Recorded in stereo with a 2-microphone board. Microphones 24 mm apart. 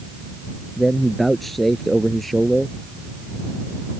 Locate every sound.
0.8 s a man speaking: 5° left (ahead or behind)